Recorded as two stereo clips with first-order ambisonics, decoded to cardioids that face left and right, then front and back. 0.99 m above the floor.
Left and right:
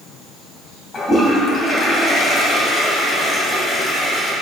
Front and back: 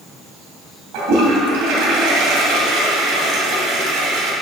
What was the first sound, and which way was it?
A toilet flushing, 160° left.